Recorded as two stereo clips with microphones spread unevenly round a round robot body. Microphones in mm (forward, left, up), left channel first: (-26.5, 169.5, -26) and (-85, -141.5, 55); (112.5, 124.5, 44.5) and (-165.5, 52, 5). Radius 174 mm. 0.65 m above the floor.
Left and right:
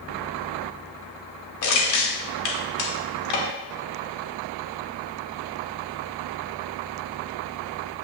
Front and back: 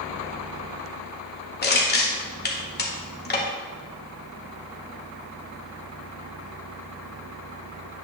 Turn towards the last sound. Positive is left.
turn(degrees=75)